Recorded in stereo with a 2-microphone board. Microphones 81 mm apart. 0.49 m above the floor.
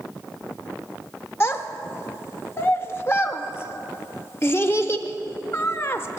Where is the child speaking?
30° left (ahead or behind), 0.7 m.